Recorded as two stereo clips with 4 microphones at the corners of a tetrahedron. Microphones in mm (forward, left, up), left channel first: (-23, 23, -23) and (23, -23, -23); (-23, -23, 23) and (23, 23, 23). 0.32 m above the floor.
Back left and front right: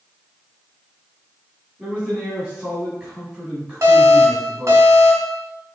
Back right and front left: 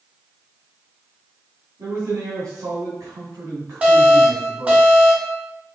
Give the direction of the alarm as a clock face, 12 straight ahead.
1 o'clock.